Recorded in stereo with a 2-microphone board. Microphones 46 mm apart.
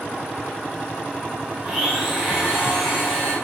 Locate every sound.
1.6 s a blender: 15° right (ahead or behind), 0.9 m